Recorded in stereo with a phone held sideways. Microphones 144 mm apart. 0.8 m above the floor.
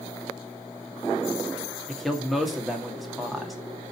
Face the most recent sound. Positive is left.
turn(degrees=0)  # may be behind; listen again after turning